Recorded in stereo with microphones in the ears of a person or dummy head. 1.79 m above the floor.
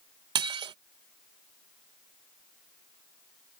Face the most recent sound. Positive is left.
turn(degrees=-30)  # may be behind; listen again after turning